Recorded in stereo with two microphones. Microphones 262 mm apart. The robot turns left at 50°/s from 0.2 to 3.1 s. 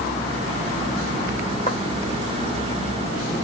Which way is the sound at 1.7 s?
30° left (ahead or behind).